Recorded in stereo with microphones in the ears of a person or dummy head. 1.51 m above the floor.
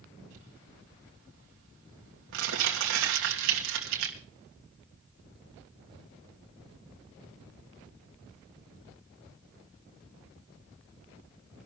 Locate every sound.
0.3 s crumpling: 75° right (ahead or behind), 3 m